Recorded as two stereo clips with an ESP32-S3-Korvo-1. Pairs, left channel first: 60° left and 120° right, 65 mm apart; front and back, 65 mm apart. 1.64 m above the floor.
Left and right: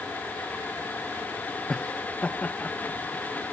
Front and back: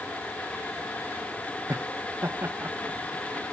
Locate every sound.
1.7 s laughter: 135° left; by 3.4 s 120° left